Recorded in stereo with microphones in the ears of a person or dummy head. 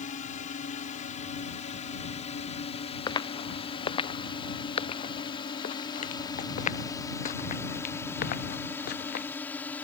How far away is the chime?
No chime in this recording.